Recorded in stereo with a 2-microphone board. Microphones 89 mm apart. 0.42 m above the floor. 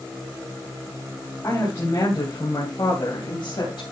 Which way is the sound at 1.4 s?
40° left (ahead or behind).